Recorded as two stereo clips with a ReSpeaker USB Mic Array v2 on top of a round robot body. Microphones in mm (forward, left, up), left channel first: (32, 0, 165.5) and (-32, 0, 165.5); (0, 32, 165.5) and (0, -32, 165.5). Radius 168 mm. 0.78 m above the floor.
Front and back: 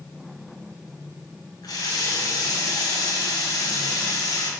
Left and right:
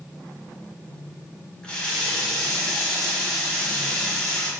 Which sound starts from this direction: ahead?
A running tap, at 1.6 s.